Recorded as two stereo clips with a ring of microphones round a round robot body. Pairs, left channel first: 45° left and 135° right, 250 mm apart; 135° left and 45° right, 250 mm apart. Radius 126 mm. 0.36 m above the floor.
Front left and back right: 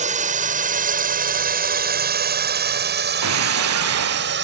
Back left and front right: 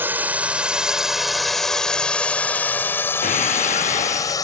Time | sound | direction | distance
0.0 | a drone | 120° right | ?
3.2 | breaking glass | 165° right | ?